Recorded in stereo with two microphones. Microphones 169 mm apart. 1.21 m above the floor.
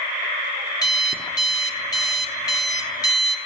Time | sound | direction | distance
0.8 | an alarm clock | 25° left (ahead or behind) | 1.1 m